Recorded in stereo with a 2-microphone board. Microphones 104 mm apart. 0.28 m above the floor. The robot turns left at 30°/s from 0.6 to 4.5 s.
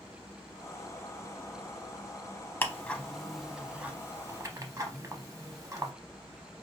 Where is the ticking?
20° left (ahead or behind), 0.5 m; by 5.9 s 30° right (ahead or behind), 0.5 m.